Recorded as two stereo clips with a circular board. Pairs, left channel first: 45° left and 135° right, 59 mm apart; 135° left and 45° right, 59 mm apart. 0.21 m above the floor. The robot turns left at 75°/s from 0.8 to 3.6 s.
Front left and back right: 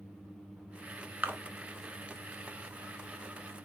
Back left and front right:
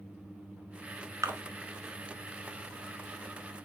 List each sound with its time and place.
1.2 s a splash: 75° right, 0.7 m; by 1.4 s 85° right, 0.7 m